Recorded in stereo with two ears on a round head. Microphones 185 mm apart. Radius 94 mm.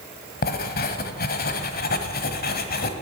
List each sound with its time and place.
0.4 s writing: 50° left (ahead or behind), 1.3 m